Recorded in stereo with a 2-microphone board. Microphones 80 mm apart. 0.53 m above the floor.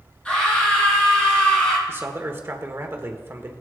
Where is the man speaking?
30° right (ahead or behind), 1.2 m.